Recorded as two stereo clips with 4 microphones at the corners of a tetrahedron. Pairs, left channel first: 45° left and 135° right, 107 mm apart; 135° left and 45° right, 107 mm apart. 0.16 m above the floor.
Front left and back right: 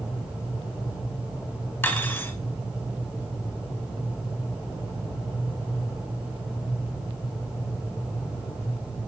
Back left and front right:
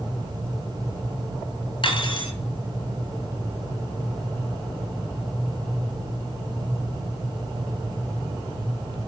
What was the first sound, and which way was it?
Cutlery clinking, 110° left.